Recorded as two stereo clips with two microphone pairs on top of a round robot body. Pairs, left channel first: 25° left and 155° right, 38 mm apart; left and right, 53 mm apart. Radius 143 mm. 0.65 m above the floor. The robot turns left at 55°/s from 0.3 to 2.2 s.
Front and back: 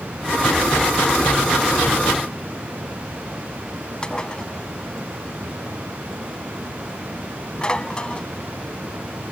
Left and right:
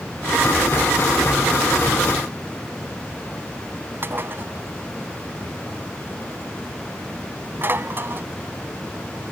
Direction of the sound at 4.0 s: 45° right.